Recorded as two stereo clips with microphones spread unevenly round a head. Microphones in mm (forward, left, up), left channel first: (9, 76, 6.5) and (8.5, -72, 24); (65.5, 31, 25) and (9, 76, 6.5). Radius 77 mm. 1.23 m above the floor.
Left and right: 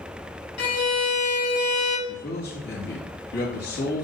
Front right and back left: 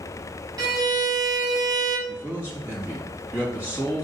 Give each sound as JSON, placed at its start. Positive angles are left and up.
{"t": 0.6, "sound": "a violin", "azimuth_deg": 105, "distance_m": 2.0}
{"t": 2.1, "sound": "a man speaking", "azimuth_deg": 80, "distance_m": 2.5}